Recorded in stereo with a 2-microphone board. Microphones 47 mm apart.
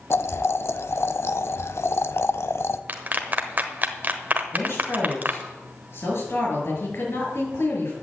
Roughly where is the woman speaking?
Left.